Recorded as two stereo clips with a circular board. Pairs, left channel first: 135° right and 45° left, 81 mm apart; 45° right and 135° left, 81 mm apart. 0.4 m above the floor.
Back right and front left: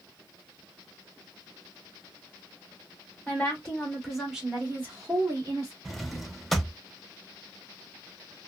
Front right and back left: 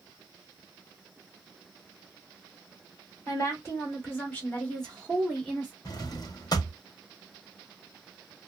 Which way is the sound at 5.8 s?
45° right.